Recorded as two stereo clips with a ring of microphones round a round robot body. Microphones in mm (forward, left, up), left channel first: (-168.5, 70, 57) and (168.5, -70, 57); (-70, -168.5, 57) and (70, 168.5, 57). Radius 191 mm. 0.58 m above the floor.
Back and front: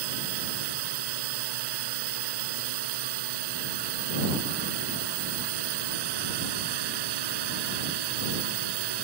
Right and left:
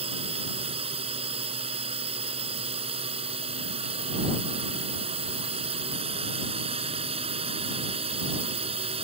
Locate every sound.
0.0 s a drone: 5° right